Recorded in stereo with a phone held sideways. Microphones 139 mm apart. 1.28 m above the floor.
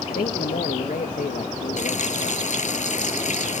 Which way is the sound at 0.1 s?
90° left.